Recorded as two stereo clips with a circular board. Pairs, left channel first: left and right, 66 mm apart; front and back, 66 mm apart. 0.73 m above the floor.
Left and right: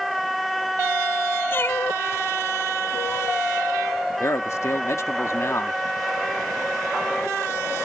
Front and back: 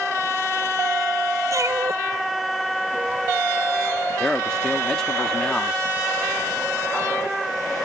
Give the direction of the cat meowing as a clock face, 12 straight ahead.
7 o'clock.